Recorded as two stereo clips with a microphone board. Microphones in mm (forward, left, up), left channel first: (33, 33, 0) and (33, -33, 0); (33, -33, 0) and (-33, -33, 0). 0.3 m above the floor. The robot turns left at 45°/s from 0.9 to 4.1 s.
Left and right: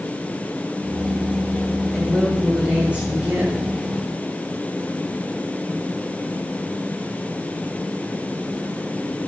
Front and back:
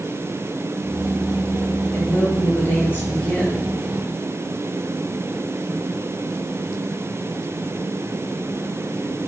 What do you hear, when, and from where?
1.9 s a woman speaking: 15° left, 1.1 m; by 3.6 s 65° right, 1.1 m